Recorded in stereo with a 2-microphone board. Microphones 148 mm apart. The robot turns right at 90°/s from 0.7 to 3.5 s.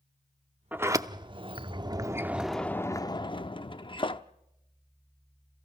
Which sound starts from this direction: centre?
A sliding door, at 0.7 s.